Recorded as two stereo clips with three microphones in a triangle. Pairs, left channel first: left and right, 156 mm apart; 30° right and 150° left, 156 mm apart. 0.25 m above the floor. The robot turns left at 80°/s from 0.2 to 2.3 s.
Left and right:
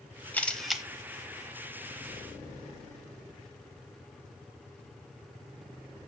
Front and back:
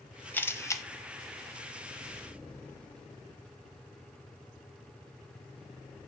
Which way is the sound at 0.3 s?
30° left.